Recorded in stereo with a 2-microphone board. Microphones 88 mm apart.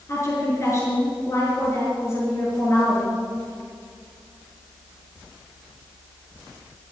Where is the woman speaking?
35° left (ahead or behind), 6 m.